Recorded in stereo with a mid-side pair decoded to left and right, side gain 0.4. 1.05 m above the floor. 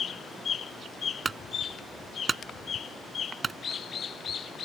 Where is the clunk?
35° right.